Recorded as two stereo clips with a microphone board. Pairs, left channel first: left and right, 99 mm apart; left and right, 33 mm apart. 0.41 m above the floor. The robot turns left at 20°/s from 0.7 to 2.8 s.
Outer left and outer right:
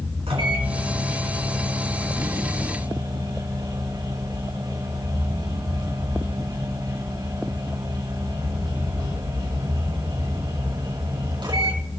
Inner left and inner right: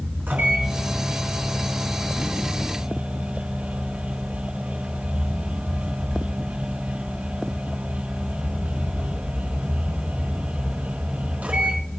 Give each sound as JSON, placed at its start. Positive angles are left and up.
{"t": 0.3, "sound": "a microwave", "azimuth_deg": -85, "distance_m": 4.0}